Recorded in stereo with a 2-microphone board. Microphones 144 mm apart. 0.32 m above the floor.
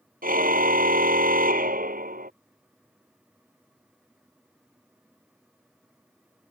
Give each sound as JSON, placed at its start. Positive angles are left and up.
{"t": 0.2, "sound": "a car horn", "side_deg": -80}